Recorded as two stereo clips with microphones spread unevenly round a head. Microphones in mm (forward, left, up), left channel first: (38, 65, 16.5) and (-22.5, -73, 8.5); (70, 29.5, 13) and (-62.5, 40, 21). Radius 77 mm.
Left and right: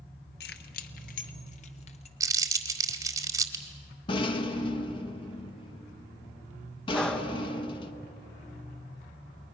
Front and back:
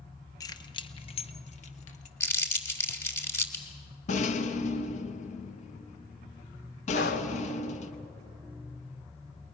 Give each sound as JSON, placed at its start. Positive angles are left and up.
{"t": 0.4, "sound": "keys jangling", "azimuth_deg": 55, "distance_m": 1.0}
{"t": 2.2, "sound": "crumpling", "azimuth_deg": -65, "distance_m": 1.3}
{"t": 4.1, "sound": "a rattle", "azimuth_deg": 15, "distance_m": 1.0}
{"t": 6.9, "sound": "breathing", "azimuth_deg": -15, "distance_m": 1.3}